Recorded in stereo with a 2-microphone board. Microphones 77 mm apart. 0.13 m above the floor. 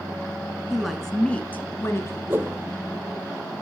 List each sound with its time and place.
0.7 s a woman speaking: 5° right (ahead or behind), 1.6 m; by 2.2 s 40° left (ahead or behind), 2.0 m
2.3 s a whoosh: 30° right (ahead or behind), 0.7 m